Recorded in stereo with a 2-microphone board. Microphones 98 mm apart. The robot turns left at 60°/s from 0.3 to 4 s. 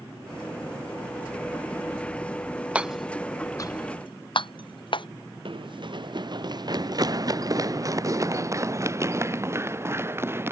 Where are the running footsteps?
65° right (ahead or behind); by 10.5 s 25° right (ahead or behind).